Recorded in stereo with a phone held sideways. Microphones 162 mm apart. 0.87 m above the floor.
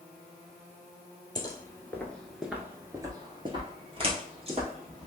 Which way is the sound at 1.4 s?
25° left (ahead or behind).